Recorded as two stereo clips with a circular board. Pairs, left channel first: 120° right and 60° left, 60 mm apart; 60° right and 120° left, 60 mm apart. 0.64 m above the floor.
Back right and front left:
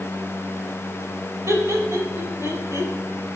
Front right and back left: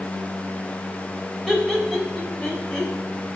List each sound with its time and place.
1.5 s laughter: 30° left, 3.5 m; by 2.9 s 20° left, 5 m